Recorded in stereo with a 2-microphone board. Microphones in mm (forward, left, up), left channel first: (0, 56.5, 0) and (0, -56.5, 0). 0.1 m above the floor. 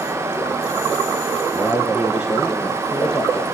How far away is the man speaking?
About 2 m.